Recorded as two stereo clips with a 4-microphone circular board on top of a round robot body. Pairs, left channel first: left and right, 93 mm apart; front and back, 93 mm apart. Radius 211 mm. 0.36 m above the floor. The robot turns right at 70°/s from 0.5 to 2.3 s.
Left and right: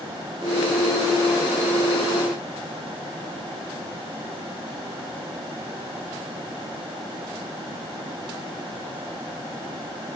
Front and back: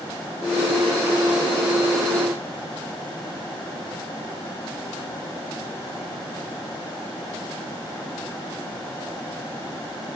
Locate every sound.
Only background noise.